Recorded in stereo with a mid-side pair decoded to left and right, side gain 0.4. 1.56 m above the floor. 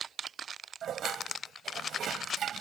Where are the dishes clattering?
65° right.